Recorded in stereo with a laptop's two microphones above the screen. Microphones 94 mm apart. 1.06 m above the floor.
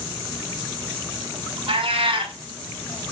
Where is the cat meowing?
65° right (ahead or behind), 1.3 m.